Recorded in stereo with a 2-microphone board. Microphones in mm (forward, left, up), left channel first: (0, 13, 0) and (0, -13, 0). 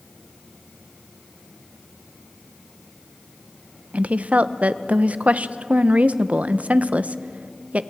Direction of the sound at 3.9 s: 65° right (ahead or behind).